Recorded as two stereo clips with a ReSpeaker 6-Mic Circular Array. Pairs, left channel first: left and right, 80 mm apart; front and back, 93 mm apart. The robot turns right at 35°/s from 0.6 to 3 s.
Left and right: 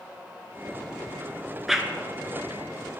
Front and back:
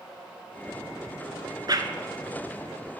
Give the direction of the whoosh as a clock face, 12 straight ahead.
6 o'clock.